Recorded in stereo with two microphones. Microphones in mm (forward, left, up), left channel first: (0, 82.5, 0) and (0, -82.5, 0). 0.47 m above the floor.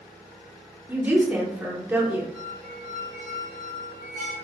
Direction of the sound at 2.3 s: 50° right (ahead or behind).